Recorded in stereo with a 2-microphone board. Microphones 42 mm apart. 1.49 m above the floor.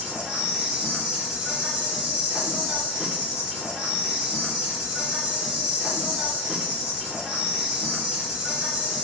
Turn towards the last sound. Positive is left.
turn(degrees=-20)  # may be behind; listen again after turning